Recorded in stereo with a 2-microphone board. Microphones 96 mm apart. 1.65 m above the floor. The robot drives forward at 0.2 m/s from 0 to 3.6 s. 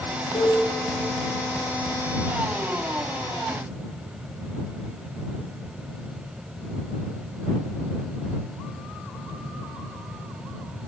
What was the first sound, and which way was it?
A cowbell, 80° left.